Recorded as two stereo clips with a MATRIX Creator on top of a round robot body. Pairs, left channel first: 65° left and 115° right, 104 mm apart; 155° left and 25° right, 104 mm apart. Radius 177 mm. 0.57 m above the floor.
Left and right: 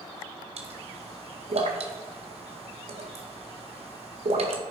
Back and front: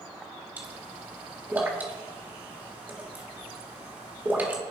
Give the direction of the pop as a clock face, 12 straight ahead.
3 o'clock.